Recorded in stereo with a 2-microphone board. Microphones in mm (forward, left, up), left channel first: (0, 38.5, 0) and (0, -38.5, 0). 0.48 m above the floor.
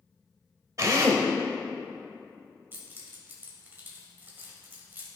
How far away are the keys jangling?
About 1.6 m.